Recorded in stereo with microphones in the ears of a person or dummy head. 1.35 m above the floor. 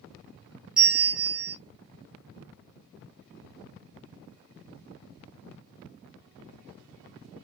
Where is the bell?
5° right (ahead or behind), 1.1 m.